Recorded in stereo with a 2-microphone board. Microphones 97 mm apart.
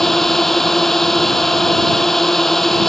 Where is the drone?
5° left (ahead or behind).